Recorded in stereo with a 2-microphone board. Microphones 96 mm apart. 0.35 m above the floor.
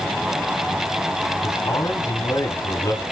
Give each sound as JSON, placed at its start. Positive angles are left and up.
{"t": 1.4, "sound": "a man speaking", "side_deg": 35, "distance_m": 3.0}